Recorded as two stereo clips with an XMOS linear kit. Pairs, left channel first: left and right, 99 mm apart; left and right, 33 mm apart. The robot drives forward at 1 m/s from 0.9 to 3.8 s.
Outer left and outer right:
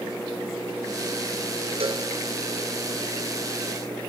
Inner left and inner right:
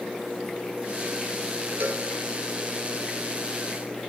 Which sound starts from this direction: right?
A cowbell, at 1.8 s.